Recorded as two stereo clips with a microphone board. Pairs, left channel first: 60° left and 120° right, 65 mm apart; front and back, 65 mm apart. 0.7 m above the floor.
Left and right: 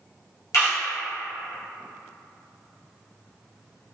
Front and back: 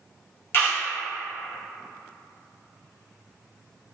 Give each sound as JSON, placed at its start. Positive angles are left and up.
{"t": 0.5, "sound": "a camera shutter", "azimuth_deg": 45, "distance_m": 1.4}